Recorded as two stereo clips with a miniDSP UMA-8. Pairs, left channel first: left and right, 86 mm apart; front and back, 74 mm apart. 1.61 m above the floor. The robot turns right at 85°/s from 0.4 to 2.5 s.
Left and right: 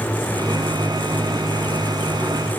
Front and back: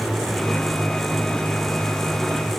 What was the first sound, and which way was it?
Only background noise.